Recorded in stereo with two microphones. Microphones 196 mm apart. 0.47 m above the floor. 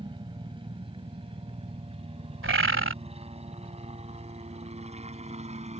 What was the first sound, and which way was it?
A helicopter, 25° right (ahead or behind).